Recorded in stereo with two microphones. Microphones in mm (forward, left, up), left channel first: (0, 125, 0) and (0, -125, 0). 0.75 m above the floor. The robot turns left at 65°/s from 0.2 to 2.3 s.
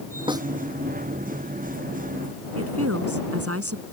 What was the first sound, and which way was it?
A snare drum, 20° right (ahead or behind).